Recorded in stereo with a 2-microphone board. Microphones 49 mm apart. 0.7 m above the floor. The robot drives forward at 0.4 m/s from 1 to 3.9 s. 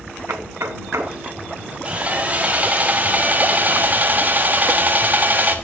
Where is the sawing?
30° right (ahead or behind), 1.7 m; by 5.5 s 40° right (ahead or behind), 1.3 m.